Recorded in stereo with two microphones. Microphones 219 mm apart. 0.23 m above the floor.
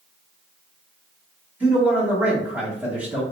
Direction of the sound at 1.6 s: 5° right (ahead or behind).